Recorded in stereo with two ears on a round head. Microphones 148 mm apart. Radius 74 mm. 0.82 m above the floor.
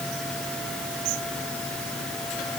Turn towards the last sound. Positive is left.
No sound to turn to.